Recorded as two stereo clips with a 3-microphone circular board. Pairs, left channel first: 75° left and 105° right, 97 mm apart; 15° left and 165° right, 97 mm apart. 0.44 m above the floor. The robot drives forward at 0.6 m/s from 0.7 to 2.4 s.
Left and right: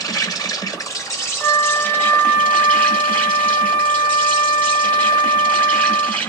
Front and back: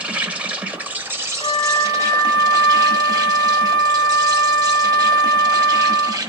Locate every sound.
0.0 s an insect: 120° left, 1.1 m; by 6.3 s 150° left, 1.8 m
1.4 s a flute: 15° left, 2.5 m; by 6.2 s 20° left, 1.8 m